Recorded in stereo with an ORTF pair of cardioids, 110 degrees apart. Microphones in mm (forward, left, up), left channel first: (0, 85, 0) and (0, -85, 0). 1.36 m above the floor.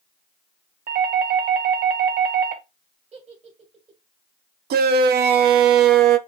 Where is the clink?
I don't hear a clink.